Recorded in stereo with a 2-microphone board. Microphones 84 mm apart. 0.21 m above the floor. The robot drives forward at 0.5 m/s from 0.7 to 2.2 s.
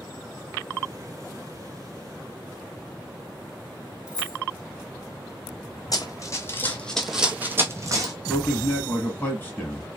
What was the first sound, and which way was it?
Keys jangling, 10° right (ahead or behind).